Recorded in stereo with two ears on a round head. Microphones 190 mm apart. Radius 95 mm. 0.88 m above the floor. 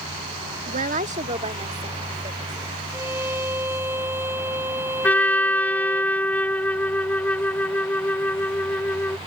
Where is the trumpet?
10° left (ahead or behind).